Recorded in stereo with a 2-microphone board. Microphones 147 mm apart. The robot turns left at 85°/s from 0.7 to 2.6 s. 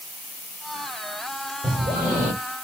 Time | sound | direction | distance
1.6 | breathing | 40° right | 2 m